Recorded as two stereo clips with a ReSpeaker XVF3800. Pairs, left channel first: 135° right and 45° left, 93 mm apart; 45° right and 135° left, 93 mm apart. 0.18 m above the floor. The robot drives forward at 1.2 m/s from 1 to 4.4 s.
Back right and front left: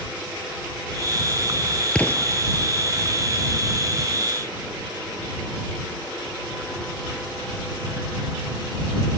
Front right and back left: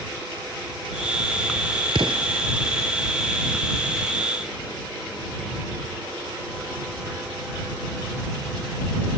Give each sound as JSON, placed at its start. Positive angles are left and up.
{"t": 1.9, "sound": "an explosion", "azimuth_deg": 145}